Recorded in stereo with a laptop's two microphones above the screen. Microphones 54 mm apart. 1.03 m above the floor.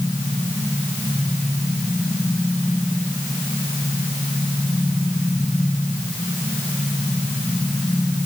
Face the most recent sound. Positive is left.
No sound to turn to.